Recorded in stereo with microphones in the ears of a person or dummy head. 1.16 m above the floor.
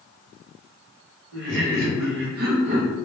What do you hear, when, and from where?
1.3 s laughter: 55° right (ahead or behind), 0.8 m; by 3.0 s 25° right (ahead or behind), 0.8 m